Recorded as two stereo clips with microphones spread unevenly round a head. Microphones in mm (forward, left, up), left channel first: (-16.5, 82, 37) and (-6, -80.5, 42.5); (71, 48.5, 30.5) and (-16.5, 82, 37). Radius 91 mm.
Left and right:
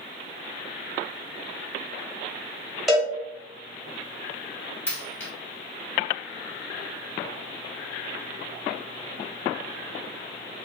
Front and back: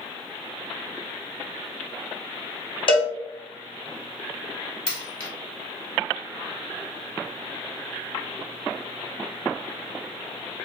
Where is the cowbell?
Straight ahead, 1.4 m.